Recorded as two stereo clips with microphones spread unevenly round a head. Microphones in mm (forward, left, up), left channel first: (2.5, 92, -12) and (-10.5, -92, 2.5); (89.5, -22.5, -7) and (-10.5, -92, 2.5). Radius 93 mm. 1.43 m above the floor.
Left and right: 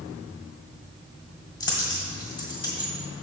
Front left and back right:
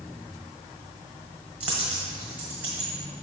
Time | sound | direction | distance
1.6 | a dropped coin | 145° left | 1.4 m